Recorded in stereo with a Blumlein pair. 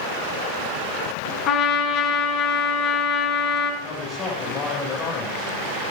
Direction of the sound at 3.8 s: 25° left.